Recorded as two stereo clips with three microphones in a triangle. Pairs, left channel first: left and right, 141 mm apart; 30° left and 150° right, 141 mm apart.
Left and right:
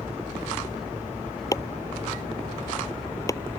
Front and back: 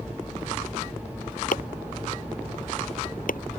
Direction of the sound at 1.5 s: 25° left.